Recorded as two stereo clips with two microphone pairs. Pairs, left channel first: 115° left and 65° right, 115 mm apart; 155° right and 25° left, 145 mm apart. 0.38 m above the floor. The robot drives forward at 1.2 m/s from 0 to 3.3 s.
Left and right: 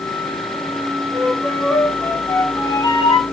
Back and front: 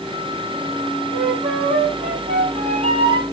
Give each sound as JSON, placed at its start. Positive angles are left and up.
{"t": 1.1, "sound": "a flute", "azimuth_deg": 40, "distance_m": 4.0}